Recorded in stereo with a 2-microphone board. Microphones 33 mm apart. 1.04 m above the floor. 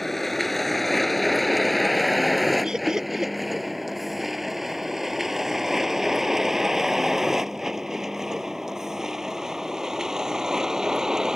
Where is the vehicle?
5° left (ahead or behind); by 11.4 s 20° right (ahead or behind).